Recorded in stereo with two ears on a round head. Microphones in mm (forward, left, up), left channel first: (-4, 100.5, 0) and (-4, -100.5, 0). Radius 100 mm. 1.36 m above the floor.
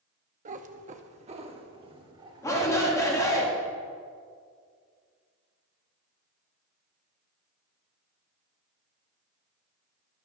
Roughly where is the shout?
Centre.